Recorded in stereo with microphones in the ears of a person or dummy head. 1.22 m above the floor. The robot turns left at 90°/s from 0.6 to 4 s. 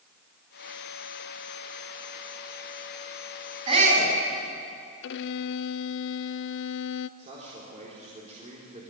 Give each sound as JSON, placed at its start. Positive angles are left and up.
{"t": 3.7, "sound": "a shout", "azimuth_deg": -25, "distance_m": 8.0}
{"t": 5.0, "sound": "a violin", "side_deg": 70, "distance_m": 0.6}
{"t": 7.2, "sound": "a man speaking", "side_deg": -35, "distance_m": 4.0}